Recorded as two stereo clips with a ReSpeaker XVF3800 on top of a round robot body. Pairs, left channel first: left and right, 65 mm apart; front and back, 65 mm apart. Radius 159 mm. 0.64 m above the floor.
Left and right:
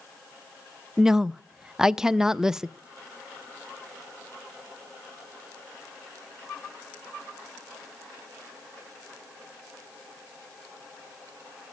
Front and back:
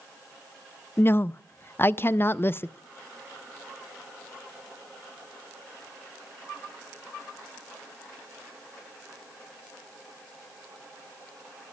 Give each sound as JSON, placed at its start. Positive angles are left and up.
{"t": 1.0, "sound": "a woman speaking", "azimuth_deg": -15, "distance_m": 0.5}